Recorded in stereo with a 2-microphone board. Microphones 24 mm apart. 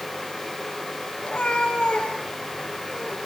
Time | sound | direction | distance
1.2 | a cat meowing | 40° left (ahead or behind) | 8 m